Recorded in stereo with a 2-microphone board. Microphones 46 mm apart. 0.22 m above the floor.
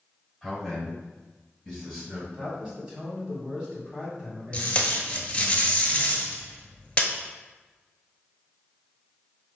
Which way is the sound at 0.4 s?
5° left (ahead or behind).